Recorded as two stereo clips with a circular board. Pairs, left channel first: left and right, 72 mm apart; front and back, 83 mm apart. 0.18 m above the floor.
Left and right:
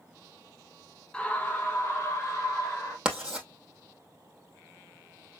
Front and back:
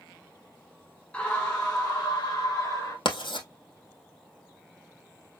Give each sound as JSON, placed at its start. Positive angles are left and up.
{"t": 1.1, "sound": "a scream", "azimuth_deg": 40, "distance_m": 1.0}
{"t": 3.0, "sound": "writing", "azimuth_deg": -10, "distance_m": 1.9}